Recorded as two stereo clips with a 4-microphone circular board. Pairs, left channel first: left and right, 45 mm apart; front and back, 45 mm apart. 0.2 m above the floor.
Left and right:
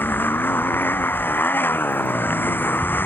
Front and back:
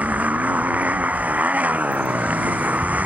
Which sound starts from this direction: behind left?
A motorcycle, at 0.0 s.